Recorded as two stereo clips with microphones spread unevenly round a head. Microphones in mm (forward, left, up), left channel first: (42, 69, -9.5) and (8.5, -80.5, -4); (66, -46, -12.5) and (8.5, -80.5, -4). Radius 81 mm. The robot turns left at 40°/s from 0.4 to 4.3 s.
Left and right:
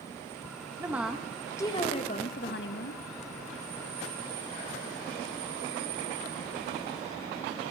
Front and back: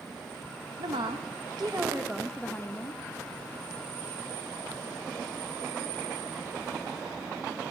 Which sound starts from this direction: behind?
A woman speaking, at 0.8 s.